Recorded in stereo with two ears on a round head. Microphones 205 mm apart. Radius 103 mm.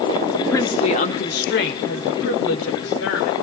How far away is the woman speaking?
About 1.4 m.